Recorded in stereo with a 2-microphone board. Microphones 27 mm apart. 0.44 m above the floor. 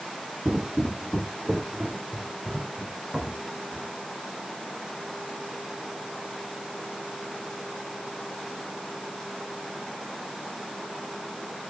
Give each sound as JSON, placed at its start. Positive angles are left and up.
{"t": 0.5, "sound": "footsteps", "side_deg": -50, "distance_m": 0.6}